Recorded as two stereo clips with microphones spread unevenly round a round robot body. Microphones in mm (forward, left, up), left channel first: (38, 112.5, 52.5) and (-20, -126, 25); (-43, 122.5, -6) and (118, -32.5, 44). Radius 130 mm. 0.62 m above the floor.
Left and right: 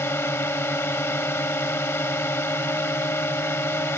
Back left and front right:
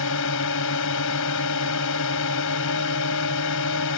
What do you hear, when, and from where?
0.0 s a drone: 155° left